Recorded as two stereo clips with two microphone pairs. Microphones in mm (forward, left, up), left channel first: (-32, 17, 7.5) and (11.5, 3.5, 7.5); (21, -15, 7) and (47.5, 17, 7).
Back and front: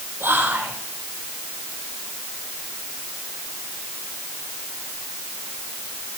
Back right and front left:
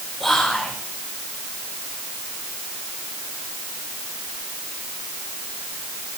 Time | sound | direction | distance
0.2 | whispering | 45° right | 4.5 m